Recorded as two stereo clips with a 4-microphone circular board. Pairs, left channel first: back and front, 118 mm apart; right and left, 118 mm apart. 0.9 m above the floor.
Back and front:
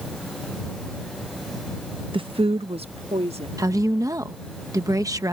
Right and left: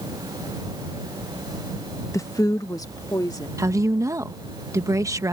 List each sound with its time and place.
2.1 s a woman speaking: 30° right
3.6 s a woman speaking: 45° left